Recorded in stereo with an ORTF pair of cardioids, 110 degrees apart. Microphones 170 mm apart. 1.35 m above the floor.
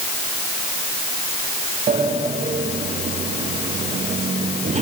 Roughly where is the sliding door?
Ahead right.